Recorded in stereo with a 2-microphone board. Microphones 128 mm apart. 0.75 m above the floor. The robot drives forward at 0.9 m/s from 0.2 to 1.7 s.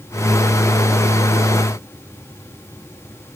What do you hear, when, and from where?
Only background noise.